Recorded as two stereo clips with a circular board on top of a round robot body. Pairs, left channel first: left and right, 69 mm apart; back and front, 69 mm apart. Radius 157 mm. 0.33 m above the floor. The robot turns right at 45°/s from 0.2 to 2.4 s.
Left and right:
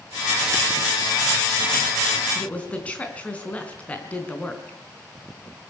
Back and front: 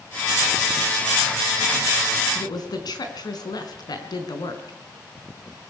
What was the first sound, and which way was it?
A woman speaking, 160° left.